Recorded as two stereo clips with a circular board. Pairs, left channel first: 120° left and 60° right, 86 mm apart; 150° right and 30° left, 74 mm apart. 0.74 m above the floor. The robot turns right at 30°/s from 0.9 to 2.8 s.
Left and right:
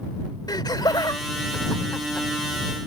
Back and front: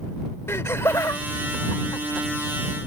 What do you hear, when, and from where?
0.5 s laughter: 160° left; by 2.3 s 160° right